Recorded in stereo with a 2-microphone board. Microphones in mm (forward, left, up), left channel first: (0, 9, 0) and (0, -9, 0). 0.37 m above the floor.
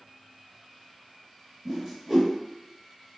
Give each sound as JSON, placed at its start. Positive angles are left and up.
{"t": 1.6, "sound": "a whoosh", "side_deg": -10, "distance_m": 1.0}